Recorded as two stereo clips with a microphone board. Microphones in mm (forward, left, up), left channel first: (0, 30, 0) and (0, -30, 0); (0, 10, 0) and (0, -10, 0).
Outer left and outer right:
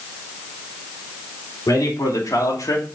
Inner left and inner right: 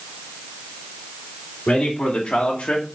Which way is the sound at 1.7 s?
65° left (ahead or behind).